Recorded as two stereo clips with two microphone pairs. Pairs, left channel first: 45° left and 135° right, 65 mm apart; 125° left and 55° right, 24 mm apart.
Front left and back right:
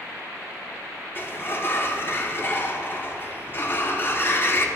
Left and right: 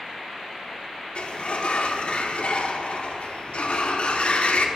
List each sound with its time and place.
1.1 s a sliding door: 95° left, 0.5 m